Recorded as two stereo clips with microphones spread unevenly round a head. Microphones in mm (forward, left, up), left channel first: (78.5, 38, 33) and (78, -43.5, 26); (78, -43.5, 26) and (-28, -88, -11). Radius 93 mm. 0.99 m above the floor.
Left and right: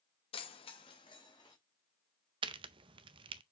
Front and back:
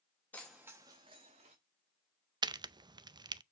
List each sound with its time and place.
0.3 s keys jangling: 105° left, 0.8 m; by 1.6 s 155° left, 1.4 m
2.4 s a crack: 105° right, 0.5 m